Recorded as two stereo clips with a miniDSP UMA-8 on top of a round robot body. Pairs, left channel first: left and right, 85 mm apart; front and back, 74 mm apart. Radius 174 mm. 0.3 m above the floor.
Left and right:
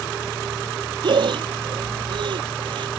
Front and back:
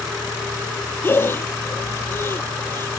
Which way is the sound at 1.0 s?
60° right.